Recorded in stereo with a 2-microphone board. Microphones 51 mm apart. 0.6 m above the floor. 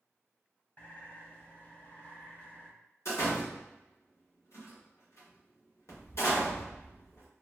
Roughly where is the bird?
Left.